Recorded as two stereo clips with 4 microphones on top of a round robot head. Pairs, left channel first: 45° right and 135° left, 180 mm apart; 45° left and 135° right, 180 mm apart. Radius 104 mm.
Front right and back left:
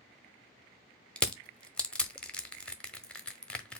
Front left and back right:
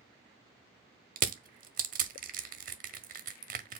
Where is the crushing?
130° right, 0.7 m.